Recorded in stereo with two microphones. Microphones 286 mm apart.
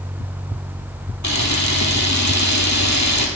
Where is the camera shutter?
80° left, 1.8 m.